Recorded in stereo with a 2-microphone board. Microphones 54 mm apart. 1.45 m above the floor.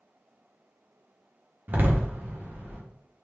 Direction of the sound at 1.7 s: 35° right (ahead or behind).